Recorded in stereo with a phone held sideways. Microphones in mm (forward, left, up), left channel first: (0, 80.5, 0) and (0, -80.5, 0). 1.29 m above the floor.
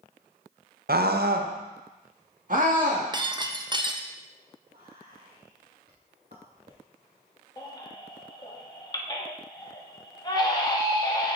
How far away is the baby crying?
About 1.0 m.